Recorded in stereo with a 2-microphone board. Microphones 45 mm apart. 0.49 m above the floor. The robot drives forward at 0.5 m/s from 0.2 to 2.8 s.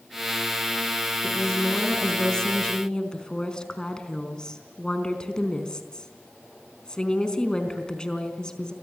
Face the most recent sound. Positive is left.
turn(degrees=20)  # may be behind; listen again after turning